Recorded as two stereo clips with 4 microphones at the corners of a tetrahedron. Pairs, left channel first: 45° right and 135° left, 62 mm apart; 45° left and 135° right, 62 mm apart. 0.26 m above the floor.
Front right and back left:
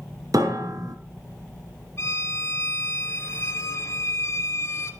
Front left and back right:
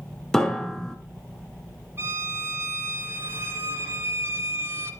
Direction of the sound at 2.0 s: 90° right.